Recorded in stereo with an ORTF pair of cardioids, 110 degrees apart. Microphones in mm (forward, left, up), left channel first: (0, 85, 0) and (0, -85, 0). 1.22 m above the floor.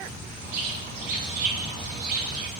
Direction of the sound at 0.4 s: 65° right.